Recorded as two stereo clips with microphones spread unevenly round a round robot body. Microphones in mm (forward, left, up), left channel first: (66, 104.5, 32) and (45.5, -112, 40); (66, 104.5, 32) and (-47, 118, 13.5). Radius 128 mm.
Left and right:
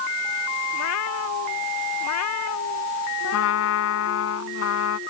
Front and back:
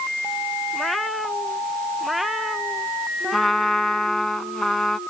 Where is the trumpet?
80° left.